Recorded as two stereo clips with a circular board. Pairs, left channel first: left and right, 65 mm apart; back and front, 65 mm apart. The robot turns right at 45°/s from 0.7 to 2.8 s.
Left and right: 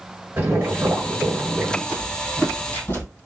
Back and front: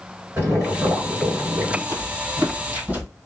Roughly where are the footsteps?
Ahead.